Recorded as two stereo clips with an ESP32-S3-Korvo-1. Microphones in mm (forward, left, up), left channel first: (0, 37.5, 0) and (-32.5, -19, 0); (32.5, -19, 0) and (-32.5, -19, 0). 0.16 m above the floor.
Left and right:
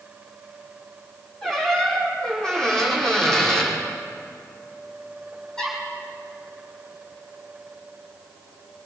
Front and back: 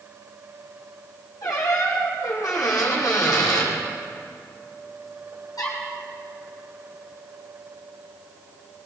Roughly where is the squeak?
Ahead.